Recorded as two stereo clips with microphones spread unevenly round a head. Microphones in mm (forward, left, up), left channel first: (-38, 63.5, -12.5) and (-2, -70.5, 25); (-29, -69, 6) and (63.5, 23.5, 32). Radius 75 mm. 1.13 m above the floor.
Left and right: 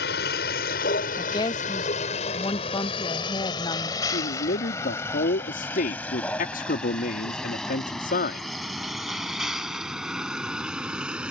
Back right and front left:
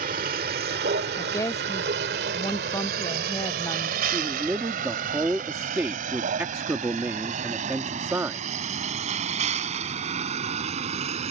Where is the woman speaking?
160° left.